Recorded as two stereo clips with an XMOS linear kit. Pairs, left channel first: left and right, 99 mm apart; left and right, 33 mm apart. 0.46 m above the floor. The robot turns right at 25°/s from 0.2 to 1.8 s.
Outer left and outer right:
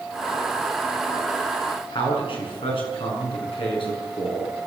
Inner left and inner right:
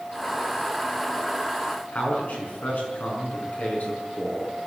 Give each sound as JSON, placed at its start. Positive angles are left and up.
{"t": 1.9, "sound": "a man speaking", "side_deg": 60, "distance_m": 6.0}